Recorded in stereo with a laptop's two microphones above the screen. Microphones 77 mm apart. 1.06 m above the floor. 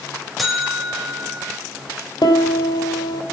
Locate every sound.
0.4 s a buzzer: centre (ahead or behind), 4.5 m
2.2 s a piano: 75° left (ahead or behind), 3 m